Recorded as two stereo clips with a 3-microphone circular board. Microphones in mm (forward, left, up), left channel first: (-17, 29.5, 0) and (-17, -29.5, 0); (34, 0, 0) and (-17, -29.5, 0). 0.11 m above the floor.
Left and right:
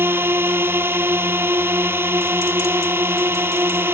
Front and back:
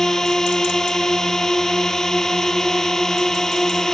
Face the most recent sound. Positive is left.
turn(degrees=-50)